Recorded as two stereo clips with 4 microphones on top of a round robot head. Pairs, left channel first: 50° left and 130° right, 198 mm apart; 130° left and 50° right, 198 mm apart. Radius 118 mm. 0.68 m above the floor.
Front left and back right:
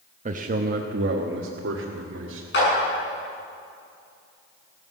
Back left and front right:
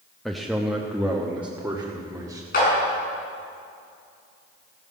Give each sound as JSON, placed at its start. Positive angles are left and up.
{"t": 0.2, "sound": "a man speaking", "azimuth_deg": -140, "distance_m": 0.9}
{"t": 2.5, "sound": "a clap", "azimuth_deg": 85, "distance_m": 7.5}